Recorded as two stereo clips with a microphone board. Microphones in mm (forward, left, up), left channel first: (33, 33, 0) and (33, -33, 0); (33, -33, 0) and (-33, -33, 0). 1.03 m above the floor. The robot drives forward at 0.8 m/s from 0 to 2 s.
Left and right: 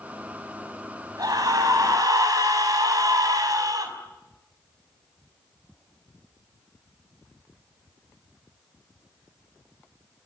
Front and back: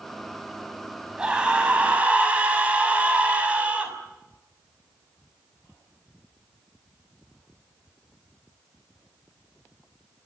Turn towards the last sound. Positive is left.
turn(degrees=-110)